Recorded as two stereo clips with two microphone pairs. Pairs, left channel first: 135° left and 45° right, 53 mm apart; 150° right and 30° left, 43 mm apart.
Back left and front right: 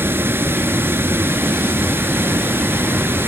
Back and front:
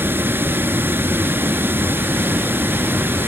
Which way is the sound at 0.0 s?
5° right.